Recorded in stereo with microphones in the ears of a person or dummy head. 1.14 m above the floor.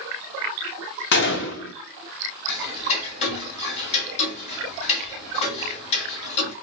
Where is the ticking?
35° left (ahead or behind), 1.7 m.